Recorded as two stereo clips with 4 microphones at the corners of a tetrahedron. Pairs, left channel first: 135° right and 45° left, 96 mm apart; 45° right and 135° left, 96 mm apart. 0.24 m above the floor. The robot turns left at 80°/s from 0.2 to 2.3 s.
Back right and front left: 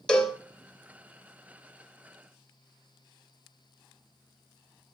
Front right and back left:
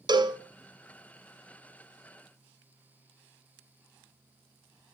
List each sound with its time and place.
0.1 s a cowbell: 145° left, 1.2 m; by 0.4 s 125° left, 1.2 m